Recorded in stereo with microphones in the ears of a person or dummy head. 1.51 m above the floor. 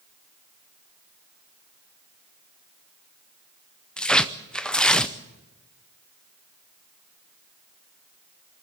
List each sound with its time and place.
4.0 s tearing paper: centre (ahead or behind), 0.6 m